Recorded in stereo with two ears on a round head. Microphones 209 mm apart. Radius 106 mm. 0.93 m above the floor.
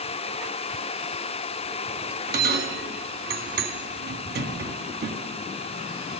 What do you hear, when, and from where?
2.3 s a bell: 45° right (ahead or behind), 1.7 m